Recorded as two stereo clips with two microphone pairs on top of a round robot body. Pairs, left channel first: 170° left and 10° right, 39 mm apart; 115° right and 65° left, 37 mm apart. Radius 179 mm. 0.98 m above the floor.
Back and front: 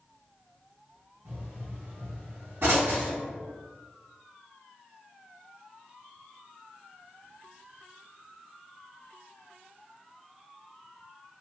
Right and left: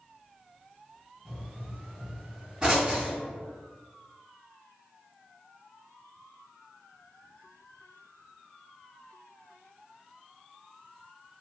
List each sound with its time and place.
1.2 s a pop: 5° left, 1.8 m